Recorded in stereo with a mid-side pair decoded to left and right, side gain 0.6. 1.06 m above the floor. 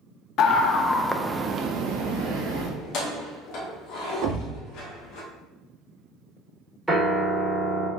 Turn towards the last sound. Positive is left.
turn(degrees=-5)